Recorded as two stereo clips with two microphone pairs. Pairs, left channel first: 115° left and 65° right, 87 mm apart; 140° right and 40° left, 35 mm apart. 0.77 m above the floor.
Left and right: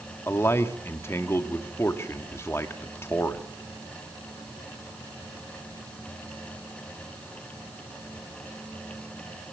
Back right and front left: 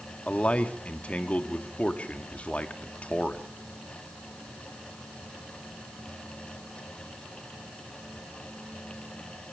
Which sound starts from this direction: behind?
A man speaking, at 0.3 s.